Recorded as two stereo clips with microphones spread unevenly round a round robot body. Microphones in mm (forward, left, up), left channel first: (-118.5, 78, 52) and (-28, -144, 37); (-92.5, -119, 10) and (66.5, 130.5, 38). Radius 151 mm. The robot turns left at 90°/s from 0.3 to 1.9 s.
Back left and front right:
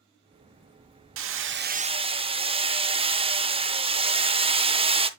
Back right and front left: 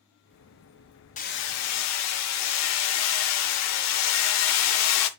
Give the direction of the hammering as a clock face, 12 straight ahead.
2 o'clock.